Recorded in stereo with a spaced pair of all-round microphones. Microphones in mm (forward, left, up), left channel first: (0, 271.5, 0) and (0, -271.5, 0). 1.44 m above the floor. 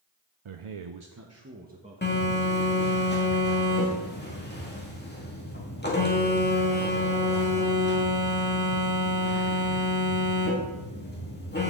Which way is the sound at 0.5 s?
60° right (ahead or behind).